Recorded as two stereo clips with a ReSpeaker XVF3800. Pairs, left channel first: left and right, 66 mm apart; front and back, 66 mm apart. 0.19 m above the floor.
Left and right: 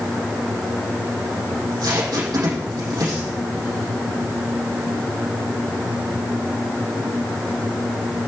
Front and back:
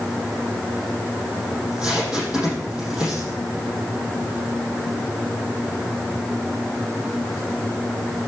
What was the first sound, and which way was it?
Tape being pulled, 105° right.